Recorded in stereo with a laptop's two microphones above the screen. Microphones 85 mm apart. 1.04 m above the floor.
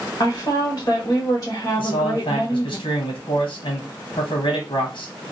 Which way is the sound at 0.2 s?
40° left (ahead or behind).